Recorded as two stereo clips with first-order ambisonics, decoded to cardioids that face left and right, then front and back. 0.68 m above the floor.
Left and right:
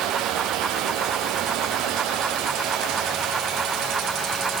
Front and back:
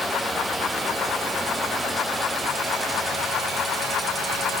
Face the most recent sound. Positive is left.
No sound to turn to.